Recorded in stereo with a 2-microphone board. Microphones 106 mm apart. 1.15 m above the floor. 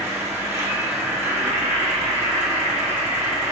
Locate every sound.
0.0 s an insect: 25° right (ahead or behind), 4 m